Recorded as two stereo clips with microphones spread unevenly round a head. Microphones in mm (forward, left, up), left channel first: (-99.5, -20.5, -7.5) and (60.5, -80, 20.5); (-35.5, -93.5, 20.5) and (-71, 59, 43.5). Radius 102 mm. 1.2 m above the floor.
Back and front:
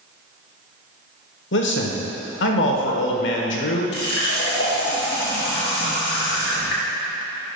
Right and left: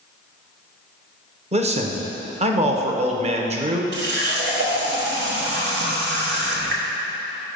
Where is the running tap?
115° left, 1.0 m.